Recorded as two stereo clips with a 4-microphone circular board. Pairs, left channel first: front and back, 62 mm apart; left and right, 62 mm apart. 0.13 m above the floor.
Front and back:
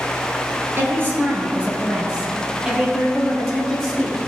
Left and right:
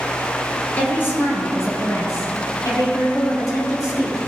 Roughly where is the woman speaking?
Behind left.